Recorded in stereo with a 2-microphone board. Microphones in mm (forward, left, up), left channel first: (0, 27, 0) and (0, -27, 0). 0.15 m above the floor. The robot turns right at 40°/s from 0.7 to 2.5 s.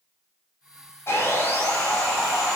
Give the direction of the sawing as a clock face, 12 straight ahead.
8 o'clock.